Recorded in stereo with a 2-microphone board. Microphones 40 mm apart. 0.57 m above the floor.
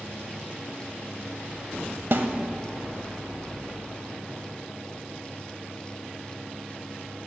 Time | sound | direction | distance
2.1 | a snare drum | 60° right (ahead or behind) | 0.5 m